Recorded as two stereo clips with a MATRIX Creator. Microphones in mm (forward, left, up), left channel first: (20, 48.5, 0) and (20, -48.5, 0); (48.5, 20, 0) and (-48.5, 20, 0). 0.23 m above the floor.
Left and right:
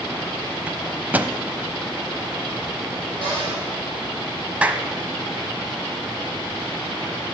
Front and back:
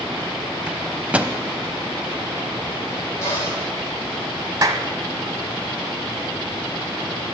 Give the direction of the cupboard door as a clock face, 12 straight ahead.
2 o'clock.